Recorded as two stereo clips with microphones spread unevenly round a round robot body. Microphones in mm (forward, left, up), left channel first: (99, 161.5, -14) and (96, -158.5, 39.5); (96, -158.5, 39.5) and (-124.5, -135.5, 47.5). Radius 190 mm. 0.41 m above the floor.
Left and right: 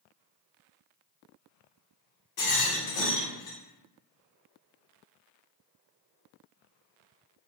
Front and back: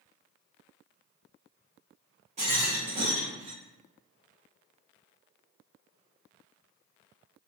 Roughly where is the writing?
I don't hear writing.